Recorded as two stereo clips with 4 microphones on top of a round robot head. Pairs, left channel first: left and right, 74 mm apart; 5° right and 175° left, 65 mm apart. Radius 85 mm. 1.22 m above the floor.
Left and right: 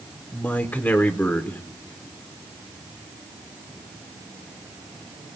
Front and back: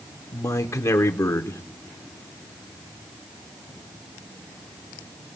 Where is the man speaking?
30° left, 0.8 m.